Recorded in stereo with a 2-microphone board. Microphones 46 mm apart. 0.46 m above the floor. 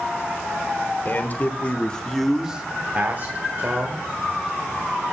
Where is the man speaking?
40° left (ahead or behind), 1.3 m; by 4.0 s 50° right (ahead or behind), 1.6 m.